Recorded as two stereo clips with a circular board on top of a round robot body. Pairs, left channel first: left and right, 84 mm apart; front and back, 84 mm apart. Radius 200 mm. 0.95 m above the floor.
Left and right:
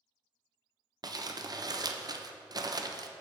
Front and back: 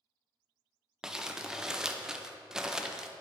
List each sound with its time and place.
1.0 s crumpling: 100° right, 0.7 m